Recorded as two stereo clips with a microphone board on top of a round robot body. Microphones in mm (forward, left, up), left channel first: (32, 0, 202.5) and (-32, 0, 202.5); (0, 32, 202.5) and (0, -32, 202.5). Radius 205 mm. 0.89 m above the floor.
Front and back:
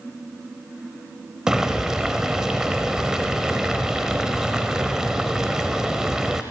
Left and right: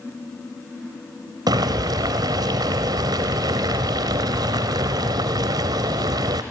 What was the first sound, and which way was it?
Boiling, 100° right.